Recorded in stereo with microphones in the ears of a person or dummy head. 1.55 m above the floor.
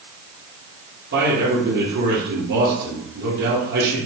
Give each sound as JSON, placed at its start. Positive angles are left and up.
{"t": 1.1, "sound": "a man speaking", "side_deg": -60, "distance_m": 1.8}